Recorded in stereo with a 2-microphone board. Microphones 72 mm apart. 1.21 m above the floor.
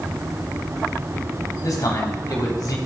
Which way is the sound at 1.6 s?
60° left (ahead or behind).